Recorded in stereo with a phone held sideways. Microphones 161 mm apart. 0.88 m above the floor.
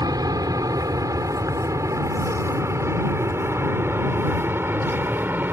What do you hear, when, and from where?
0.0 s an aircraft: 25° right (ahead or behind); by 5.5 s 10° right (ahead or behind)